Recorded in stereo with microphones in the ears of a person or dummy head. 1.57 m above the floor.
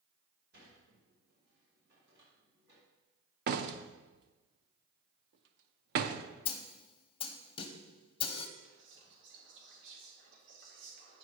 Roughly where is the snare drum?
Left.